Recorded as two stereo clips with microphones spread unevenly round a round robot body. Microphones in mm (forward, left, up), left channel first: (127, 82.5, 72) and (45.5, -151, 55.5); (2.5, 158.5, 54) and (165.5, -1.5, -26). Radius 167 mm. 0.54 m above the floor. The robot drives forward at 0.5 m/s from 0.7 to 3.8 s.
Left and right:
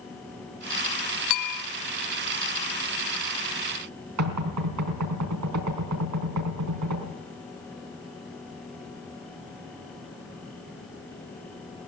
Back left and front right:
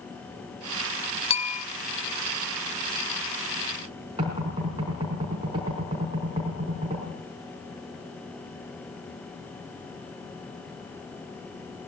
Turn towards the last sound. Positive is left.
turn(degrees=-120)